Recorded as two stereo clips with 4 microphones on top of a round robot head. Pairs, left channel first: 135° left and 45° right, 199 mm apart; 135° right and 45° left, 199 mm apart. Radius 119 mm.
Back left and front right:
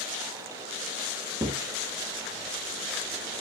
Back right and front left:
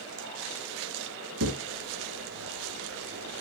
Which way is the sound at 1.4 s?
35° left.